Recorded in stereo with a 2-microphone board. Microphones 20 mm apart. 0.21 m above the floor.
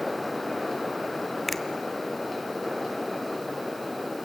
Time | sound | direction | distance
1.5 | a finger snap | 5° left (ahead or behind) | 1.2 m